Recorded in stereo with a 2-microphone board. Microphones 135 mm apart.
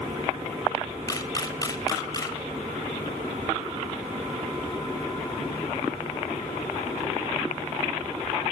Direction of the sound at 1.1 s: 25° left (ahead or behind).